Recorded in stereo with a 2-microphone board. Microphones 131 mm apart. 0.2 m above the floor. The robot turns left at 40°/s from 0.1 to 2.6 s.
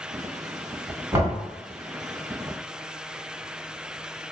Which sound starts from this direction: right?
Knocking, at 1.1 s.